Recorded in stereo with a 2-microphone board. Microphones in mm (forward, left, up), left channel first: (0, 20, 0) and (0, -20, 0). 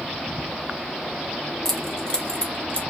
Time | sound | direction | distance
1.6 | keys jangling | 10° left (ahead or behind) | 0.8 m